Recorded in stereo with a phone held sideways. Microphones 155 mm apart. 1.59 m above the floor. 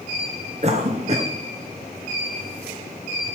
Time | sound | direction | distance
0.6 | a cough | 45° right (ahead or behind) | 0.9 m